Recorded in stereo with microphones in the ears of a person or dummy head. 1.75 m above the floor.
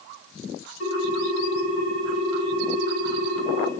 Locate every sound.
0.8 s a ringtone: 80° left, 5 m